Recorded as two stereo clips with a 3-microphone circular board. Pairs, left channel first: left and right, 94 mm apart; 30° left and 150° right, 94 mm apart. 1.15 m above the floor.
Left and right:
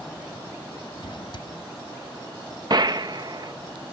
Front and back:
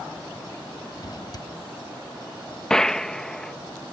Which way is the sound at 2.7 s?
55° right.